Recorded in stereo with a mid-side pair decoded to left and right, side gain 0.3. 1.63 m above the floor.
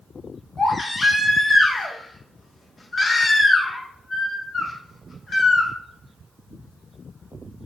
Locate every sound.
0.6 s a baby crying: 50° left, 1.4 m